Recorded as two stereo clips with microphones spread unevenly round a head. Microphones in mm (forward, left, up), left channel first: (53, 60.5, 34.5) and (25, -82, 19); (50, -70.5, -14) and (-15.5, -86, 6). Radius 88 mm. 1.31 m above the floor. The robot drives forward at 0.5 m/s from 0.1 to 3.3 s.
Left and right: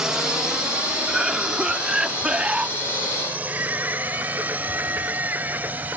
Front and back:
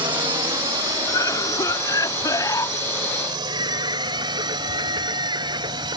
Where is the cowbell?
No cowbell in this recording.